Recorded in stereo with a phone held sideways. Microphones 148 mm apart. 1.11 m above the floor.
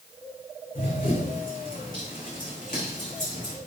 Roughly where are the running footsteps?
Left.